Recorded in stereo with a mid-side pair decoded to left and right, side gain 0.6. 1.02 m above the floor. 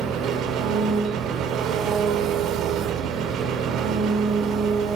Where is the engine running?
65° right, 1.4 m.